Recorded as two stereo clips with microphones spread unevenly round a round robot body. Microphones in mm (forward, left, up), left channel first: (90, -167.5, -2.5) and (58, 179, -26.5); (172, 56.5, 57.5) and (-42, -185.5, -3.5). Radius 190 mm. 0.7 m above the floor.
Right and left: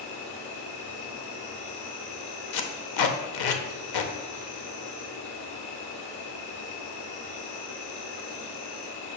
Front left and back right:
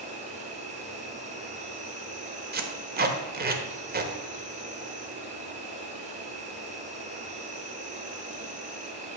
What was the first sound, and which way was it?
An insect, 70° right.